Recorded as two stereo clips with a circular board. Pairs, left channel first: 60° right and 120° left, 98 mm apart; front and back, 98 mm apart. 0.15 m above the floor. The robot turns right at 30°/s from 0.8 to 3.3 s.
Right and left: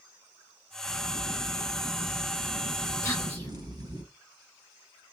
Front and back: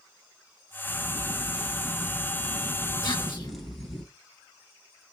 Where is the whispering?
10° right, 2 m; by 3.5 s 5° right, 2 m.